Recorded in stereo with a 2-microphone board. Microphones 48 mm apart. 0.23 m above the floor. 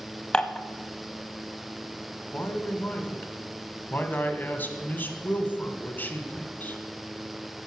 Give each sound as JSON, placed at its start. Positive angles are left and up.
{"t": 0.3, "sound": "dishes clattering", "side_deg": 20, "distance_m": 0.7}
{"t": 2.3, "sound": "a man speaking", "side_deg": 40, "distance_m": 1.2}